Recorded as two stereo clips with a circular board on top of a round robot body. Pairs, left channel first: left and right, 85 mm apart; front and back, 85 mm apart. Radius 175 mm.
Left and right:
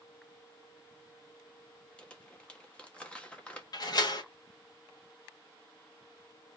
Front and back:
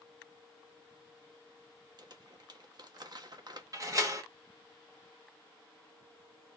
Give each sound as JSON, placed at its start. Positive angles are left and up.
{"t": 2.0, "sound": "crumpling", "azimuth_deg": 165, "distance_m": 1.9}
{"t": 3.7, "sound": "a door slam", "azimuth_deg": 130, "distance_m": 2.5}